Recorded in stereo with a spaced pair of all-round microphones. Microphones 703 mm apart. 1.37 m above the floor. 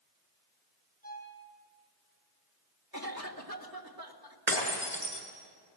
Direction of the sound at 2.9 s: 30° right (ahead or behind).